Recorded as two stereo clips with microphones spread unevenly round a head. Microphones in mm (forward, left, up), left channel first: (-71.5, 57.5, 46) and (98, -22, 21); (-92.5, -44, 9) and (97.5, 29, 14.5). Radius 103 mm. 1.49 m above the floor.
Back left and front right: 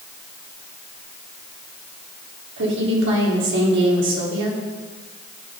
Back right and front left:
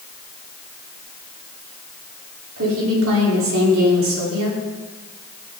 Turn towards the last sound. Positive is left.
turn(degrees=-5)